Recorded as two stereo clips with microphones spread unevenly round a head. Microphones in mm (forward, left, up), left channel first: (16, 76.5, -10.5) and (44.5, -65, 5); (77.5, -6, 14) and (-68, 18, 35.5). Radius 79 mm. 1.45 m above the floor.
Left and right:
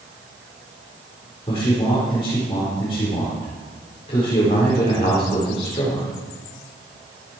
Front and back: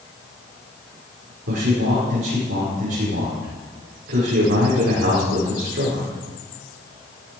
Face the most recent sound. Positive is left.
turn(degrees=160)